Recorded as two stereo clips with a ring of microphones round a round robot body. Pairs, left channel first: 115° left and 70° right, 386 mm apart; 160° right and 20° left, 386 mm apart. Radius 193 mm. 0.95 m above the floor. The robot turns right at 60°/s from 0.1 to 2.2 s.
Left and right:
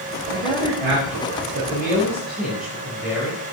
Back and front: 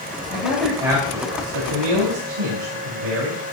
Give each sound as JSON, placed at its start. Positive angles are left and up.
{"t": 0.3, "sound": "a man speaking", "azimuth_deg": -90, "distance_m": 4.0}